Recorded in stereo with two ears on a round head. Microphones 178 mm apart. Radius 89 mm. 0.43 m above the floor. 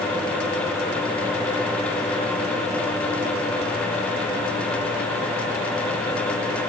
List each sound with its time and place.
Only background noise.